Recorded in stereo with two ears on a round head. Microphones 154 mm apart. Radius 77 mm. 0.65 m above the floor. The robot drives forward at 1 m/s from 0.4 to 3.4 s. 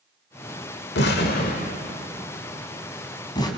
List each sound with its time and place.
0.9 s an explosion: 70° left (ahead or behind), 1.5 m; by 3.5 s 25° left (ahead or behind), 3 m